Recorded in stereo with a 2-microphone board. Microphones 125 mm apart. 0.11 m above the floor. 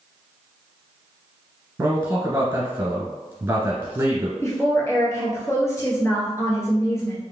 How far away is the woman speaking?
About 1.4 m.